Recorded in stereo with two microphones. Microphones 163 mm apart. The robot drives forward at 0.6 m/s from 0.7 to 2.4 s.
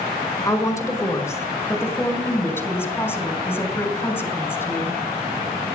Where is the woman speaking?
20° left (ahead or behind), 2 m; by 5.0 s 15° left (ahead or behind), 3 m.